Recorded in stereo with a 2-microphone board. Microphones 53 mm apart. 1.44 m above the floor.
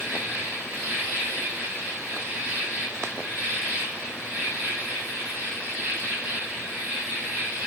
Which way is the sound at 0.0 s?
35° right (ahead or behind).